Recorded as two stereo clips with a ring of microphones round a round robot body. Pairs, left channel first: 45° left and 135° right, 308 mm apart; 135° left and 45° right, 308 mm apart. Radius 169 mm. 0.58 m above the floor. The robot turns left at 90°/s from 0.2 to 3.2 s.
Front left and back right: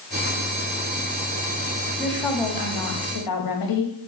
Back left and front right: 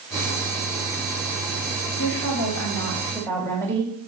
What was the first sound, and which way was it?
A woman speaking, 160° left.